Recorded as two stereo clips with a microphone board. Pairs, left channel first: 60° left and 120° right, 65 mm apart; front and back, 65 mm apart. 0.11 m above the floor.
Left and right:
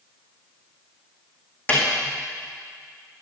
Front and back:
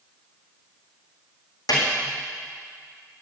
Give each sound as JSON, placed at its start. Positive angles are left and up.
{"t": 1.7, "sound": "a snare drum", "azimuth_deg": 0, "distance_m": 4.5}